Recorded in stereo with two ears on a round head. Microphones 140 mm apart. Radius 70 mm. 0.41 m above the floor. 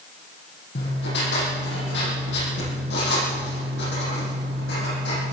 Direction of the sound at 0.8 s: 80° left.